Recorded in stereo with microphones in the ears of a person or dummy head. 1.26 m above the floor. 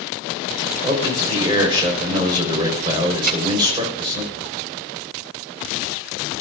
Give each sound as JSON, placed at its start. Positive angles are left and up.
{"t": 0.8, "sound": "a man speaking", "side_deg": -20, "distance_m": 4.5}
{"t": 3.2, "sound": "a thud", "side_deg": -50, "distance_m": 2.5}